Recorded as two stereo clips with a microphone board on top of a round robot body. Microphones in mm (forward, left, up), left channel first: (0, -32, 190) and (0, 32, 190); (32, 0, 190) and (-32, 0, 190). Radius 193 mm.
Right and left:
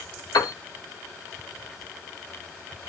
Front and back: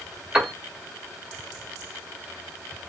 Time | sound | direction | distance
0.3 | a piano | 100° right | 1.3 m